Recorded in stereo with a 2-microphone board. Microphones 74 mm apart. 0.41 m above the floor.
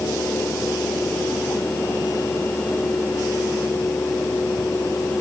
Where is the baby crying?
No baby crying in this recording.